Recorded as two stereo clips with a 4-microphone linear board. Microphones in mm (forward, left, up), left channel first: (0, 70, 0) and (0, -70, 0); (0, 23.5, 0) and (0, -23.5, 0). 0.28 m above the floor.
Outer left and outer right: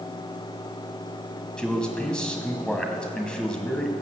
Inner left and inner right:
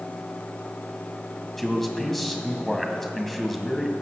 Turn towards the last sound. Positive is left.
turn(degrees=5)  # may be behind; listen again after turning